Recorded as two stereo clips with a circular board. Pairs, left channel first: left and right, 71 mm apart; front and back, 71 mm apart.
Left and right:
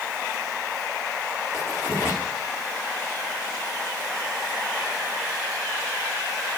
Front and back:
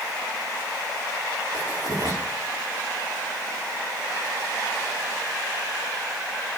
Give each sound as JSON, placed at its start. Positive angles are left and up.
{"t": 1.5, "sound": "writing", "azimuth_deg": 140, "distance_m": 9.0}